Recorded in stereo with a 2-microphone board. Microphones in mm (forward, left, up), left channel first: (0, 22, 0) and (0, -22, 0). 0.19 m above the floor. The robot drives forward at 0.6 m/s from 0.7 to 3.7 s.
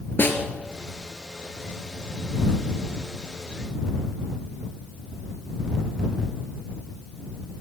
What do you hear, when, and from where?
0.2 s a snare drum: 50° left (ahead or behind), 3 m